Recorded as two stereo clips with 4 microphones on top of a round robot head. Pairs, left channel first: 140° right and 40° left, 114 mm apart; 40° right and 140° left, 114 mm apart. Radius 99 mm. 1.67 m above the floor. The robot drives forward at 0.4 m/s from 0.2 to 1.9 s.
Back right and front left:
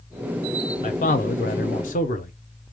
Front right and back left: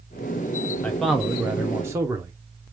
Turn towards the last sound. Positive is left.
turn(degrees=-150)